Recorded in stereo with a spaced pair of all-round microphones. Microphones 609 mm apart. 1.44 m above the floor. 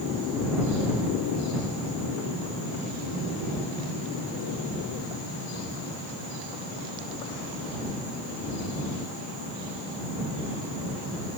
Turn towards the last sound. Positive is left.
No sound to turn to.